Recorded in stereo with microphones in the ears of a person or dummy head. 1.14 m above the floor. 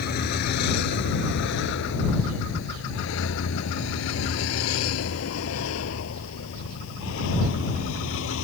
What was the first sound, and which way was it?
A vehicle, 55° left (ahead or behind).